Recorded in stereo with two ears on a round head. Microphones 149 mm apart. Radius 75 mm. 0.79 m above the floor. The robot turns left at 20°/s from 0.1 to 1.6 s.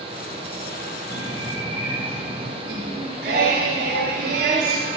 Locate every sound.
1.1 s a bird: 20° right (ahead or behind), 3.5 m; by 2.5 s 30° right (ahead or behind), 3.5 m
2.6 s singing: 60° right (ahead or behind), 2.5 m